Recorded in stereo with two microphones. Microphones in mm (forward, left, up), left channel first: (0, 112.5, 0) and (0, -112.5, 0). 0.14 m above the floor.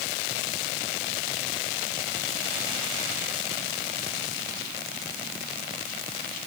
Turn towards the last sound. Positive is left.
No sound to turn to.